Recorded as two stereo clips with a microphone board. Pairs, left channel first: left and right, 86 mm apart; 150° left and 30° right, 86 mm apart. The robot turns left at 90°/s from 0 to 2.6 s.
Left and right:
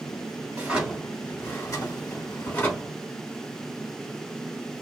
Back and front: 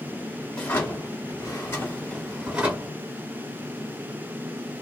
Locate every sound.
0.5 s a drawer: 145° right, 1.3 m; by 3.0 s 30° left, 1.3 m